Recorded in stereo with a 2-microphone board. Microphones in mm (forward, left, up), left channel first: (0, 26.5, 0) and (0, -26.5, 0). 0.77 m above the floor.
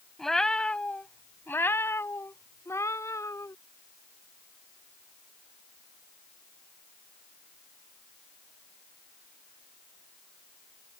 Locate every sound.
0.2 s a cat meowing: 5° left (ahead or behind); by 3.5 s 75° left (ahead or behind)